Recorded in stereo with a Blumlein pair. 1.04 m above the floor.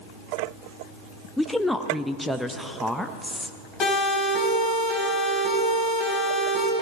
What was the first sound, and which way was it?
A woman speaking, straight ahead.